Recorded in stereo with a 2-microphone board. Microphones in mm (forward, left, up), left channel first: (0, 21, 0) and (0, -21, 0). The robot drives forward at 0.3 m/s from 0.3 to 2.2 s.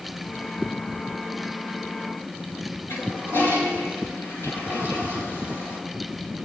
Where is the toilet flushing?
75° left (ahead or behind), 5 m.